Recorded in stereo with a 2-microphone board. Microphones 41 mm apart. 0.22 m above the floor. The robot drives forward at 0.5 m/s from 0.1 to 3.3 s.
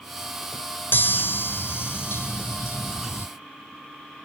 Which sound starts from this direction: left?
A chime, at 0.9 s.